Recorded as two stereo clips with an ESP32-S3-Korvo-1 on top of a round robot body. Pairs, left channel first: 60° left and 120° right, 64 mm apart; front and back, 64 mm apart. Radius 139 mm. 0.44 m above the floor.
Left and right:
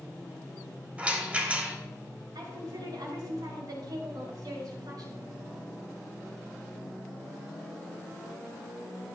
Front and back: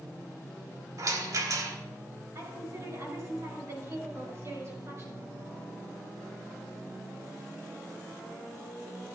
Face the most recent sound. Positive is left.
turn(degrees=-135)